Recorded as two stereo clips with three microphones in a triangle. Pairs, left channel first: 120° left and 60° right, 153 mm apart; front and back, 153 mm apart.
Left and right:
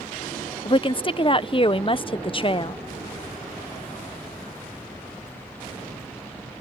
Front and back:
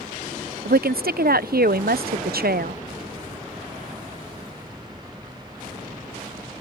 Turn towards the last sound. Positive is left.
turn(degrees=175)